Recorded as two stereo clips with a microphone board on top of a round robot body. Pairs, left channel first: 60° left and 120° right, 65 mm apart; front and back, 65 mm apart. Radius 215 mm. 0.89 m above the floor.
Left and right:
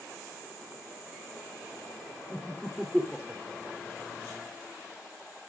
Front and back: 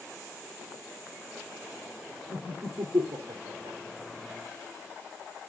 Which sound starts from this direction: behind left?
Laughter, at 2.3 s.